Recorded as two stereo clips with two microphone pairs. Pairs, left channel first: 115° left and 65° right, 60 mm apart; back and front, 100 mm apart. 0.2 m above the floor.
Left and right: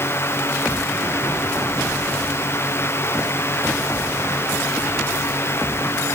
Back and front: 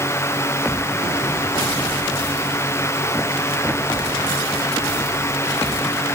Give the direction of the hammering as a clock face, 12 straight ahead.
I don't hear hammering.